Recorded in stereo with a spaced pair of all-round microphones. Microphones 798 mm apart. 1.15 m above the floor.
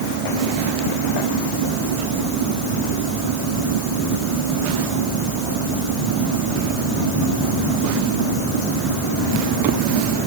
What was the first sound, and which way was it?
Only background noise.